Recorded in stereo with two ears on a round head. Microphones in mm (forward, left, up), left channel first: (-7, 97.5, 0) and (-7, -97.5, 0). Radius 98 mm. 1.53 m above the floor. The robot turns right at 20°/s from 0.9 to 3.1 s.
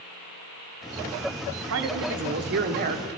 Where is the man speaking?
65° right (ahead or behind), 0.7 m; by 3.1 s 40° right (ahead or behind), 0.7 m.